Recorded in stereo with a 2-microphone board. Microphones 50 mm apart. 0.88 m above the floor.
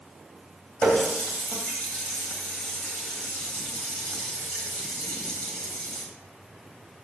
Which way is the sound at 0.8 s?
15° left (ahead or behind).